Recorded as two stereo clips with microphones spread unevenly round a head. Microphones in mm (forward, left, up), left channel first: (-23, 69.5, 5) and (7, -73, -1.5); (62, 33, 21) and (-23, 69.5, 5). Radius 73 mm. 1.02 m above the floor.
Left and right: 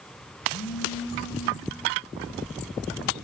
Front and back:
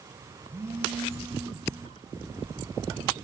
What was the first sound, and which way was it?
A phone buzzing, 90° left.